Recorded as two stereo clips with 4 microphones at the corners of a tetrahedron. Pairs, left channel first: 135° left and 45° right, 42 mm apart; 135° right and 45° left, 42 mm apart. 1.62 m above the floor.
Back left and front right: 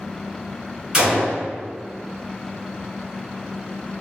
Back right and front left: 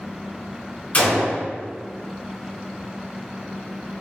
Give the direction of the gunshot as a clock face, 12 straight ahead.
4 o'clock.